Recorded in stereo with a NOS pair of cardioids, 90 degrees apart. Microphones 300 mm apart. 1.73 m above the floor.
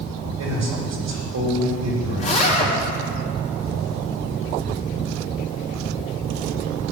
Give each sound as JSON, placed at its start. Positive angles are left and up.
{"t": 0.4, "sound": "a man speaking", "azimuth_deg": -60, "distance_m": 4.0}
{"t": 2.2, "sound": "a zipper", "azimuth_deg": 25, "distance_m": 4.5}